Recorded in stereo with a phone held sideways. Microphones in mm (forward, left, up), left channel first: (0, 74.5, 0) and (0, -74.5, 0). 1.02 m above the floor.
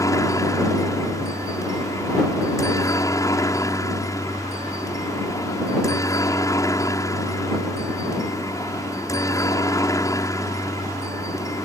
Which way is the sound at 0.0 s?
20° left (ahead or behind).